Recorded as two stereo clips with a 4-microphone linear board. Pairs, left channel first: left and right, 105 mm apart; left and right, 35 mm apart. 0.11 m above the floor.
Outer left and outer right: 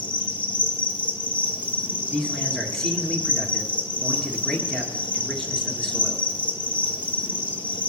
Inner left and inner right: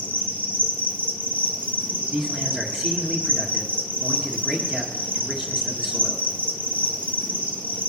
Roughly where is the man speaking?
Centre.